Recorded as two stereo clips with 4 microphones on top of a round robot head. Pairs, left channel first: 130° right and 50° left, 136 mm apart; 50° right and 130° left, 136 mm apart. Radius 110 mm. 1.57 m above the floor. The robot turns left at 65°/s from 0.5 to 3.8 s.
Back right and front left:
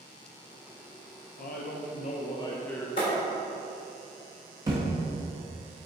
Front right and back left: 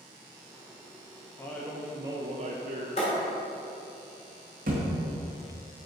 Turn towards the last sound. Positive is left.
turn(degrees=115)